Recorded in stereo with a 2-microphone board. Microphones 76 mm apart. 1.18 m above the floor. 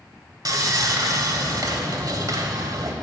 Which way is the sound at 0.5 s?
55° right (ahead or behind).